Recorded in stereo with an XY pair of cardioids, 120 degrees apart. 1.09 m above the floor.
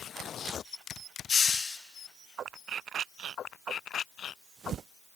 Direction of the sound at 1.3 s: 35° left.